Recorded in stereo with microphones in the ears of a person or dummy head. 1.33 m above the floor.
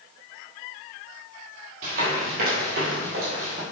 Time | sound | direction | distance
1.8 | running footsteps | 50° right (ahead or behind) | 2 m